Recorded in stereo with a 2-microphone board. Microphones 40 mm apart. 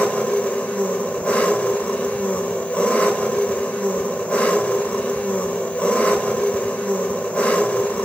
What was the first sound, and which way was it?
An engine running, 30° left (ahead or behind).